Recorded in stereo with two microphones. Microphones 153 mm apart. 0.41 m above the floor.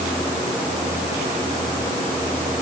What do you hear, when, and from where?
Only background noise.